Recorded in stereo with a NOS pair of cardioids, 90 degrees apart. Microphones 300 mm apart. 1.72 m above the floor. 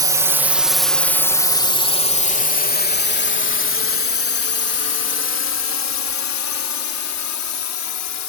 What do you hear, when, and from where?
0.0 s a drone: 10° right; by 8.3 s 65° left